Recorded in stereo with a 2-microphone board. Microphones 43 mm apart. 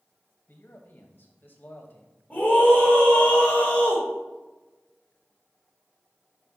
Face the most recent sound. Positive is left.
turn(degrees=35)  # may be behind; listen again after turning